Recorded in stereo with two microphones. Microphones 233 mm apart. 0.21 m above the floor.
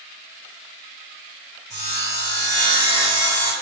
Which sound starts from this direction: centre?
Sawing, at 1.7 s.